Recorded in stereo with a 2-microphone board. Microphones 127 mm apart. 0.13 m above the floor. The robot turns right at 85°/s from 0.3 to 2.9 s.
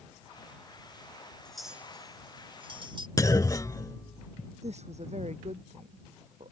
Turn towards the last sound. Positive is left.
turn(degrees=-60)  # may be behind; listen again after turning